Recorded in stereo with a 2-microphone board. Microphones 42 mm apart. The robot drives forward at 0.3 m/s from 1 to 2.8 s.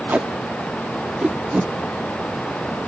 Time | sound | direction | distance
0.1 | tape being pulled | 40° right (ahead or behind) | 0.6 m